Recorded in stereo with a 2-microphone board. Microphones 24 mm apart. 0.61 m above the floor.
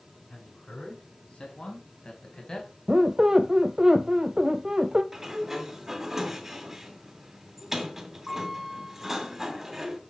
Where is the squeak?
30° right (ahead or behind), 0.7 m.